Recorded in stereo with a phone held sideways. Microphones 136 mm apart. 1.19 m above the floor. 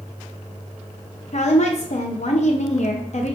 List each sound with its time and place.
1.3 s a woman speaking: 55° left (ahead or behind), 0.6 m